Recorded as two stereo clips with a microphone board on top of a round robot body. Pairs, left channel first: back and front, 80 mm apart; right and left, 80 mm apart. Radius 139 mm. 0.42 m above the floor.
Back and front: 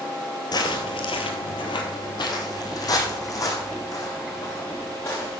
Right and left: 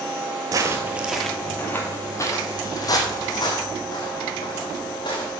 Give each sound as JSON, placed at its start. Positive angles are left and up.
{"t": 0.5, "sound": "footsteps", "azimuth_deg": 140, "distance_m": 0.8}